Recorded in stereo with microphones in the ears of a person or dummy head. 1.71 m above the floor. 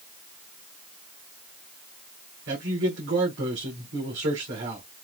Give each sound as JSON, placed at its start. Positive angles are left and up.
{"t": 2.5, "sound": "a man speaking", "side_deg": -85, "distance_m": 3.5}